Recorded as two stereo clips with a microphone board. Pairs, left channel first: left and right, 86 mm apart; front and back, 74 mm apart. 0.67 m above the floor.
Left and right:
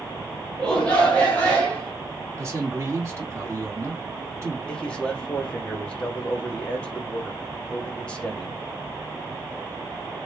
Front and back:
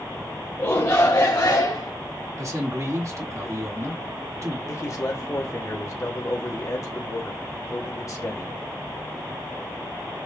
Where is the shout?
20° left, 1.1 m.